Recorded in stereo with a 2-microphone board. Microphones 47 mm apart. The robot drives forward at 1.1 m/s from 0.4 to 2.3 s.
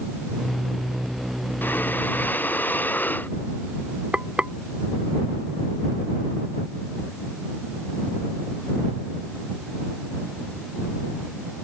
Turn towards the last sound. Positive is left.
turn(degrees=-25)  # may be behind; listen again after turning